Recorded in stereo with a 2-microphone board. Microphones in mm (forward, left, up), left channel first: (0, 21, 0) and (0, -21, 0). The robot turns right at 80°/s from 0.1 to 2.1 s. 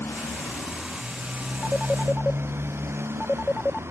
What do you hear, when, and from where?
0.0 s a motorcycle: 110° left; by 3.9 s 90° right
1.6 s a phone ringing: 10° right (ahead or behind); by 3.8 s 25° left (ahead or behind)